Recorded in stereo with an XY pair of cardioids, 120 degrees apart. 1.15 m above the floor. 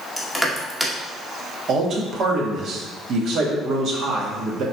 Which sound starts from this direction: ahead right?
A man speaking, at 1.7 s.